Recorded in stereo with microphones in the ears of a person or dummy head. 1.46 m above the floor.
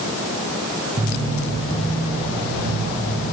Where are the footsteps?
30° right (ahead or behind), 2.5 m; by 3.2 s 45° right (ahead or behind), 5 m.